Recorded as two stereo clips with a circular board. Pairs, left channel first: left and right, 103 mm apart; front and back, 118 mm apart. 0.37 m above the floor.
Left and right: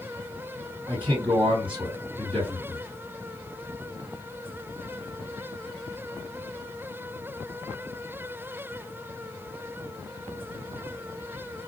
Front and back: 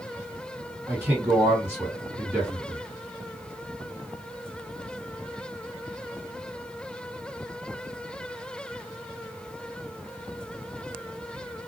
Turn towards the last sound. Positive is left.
turn(degrees=-110)